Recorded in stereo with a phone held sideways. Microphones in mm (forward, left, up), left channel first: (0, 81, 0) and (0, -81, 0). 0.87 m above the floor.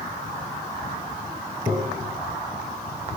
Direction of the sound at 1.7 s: 45° right (ahead or behind).